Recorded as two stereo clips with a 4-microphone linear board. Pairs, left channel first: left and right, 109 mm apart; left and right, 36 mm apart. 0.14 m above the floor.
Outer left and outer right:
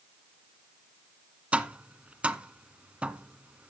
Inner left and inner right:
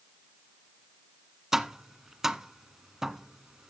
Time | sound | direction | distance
1.5 | tapping | 10° right (ahead or behind) | 0.5 m